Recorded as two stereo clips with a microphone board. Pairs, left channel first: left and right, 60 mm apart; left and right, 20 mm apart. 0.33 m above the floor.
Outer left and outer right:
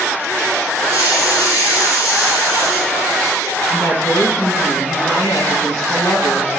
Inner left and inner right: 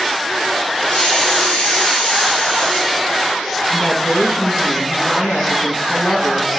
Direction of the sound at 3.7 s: 70° left (ahead or behind).